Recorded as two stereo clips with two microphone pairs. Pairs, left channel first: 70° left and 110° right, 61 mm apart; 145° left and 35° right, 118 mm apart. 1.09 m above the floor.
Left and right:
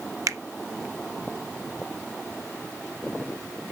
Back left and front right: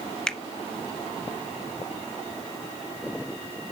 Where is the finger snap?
130° right, 0.9 m.